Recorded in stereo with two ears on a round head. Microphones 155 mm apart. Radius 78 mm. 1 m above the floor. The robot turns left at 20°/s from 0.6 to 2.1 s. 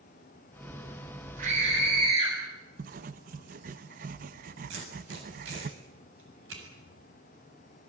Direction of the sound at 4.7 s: 85° right.